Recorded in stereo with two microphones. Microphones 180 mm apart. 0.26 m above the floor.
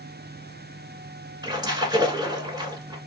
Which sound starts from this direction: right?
A splash, at 1.4 s.